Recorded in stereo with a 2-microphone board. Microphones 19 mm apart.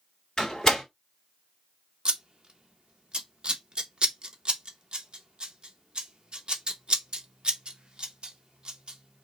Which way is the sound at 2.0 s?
50° right (ahead or behind).